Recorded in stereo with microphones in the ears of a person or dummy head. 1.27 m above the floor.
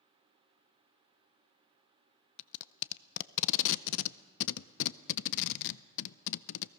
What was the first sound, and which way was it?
Tape being pulled, 70° left (ahead or behind).